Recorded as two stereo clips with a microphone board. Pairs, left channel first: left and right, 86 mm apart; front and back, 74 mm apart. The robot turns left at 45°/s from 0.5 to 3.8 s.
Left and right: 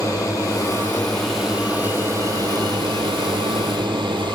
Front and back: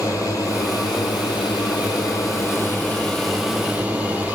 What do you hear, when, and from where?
0.0 s a drone: 40° left; by 4.3 s 110° right